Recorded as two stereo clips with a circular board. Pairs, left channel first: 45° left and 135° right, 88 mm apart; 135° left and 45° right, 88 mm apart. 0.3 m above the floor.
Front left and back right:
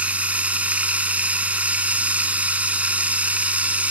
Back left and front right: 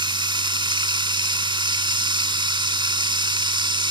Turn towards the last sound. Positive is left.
turn(degrees=-60)